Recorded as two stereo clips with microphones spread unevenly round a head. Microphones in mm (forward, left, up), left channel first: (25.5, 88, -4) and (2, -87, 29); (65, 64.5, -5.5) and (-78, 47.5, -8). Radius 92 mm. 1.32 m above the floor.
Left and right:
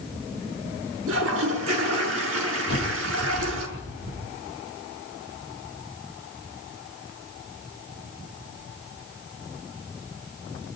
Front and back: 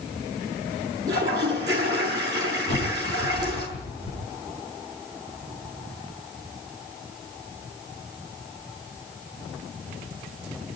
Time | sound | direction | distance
1.1 | a toilet flushing | 100° right | 6 m
2.7 | a bird | 70° right | 9 m